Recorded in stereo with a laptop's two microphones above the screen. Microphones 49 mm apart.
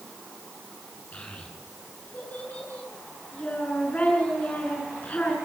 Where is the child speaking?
30° left (ahead or behind), 7 m.